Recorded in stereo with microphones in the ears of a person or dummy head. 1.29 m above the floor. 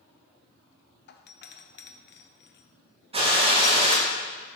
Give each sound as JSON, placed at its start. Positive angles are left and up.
{"t": 1.1, "sound": "a doorbell", "side_deg": 50, "distance_m": 0.6}
{"t": 3.1, "sound": "a gunshot", "side_deg": -35, "distance_m": 1.5}